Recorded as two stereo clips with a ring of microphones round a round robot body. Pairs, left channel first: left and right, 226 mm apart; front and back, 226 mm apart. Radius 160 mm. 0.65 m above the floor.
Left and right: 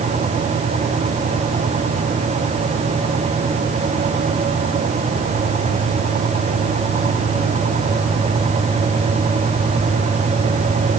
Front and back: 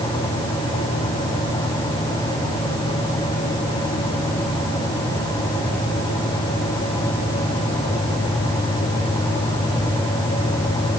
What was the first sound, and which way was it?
Only background noise.